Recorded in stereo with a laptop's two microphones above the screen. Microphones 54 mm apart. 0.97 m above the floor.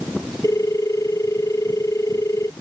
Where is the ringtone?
75° left (ahead or behind).